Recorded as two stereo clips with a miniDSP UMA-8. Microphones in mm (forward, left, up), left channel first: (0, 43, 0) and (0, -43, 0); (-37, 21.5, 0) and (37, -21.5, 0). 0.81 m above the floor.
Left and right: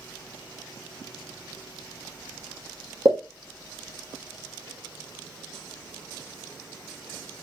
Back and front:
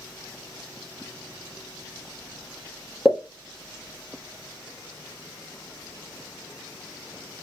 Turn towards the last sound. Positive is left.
turn(degrees=-110)